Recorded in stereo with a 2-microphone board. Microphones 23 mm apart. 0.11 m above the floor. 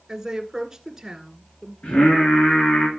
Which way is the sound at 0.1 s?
20° right (ahead or behind).